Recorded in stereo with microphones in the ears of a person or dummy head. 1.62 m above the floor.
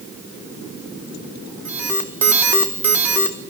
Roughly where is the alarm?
Centre.